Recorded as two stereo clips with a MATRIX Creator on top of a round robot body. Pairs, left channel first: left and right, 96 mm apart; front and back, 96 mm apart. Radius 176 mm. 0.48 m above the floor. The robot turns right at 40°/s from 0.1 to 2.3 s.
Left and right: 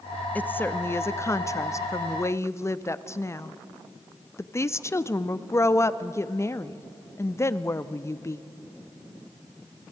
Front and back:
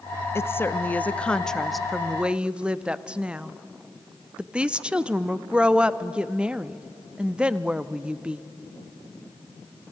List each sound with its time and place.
0.3 s a woman speaking: 35° left, 0.9 m; by 8.4 s 110° left, 0.9 m